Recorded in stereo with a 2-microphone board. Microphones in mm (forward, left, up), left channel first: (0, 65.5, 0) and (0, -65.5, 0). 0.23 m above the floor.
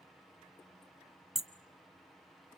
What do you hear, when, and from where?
1.4 s hammering: 5° right (ahead or behind), 1.1 m